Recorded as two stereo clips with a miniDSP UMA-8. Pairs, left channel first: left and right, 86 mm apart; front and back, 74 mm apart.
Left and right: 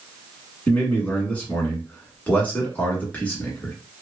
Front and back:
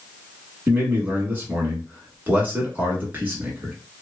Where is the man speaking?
145° left, 1.2 m.